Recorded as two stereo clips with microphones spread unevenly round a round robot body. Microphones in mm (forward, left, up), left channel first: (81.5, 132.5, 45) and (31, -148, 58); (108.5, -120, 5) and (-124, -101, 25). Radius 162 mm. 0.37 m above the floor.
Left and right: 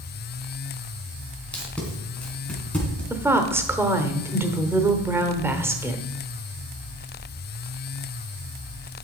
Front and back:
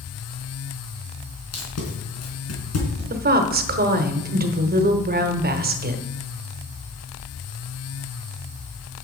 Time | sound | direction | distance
1.5 | tape being pulled | 5° right | 3.5 m
3.1 | a woman speaking | straight behind | 1.0 m